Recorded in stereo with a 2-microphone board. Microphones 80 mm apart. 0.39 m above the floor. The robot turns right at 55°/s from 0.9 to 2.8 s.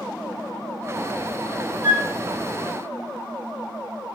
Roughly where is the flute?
Right.